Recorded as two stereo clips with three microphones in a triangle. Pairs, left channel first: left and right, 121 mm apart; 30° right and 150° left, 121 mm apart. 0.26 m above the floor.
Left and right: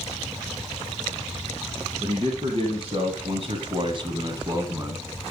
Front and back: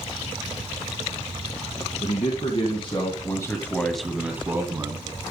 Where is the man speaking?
45° right, 2.5 m; by 5.0 s 155° right, 2.5 m.